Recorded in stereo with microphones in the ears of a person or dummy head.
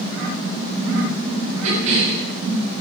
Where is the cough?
70° right (ahead or behind), 7.5 m.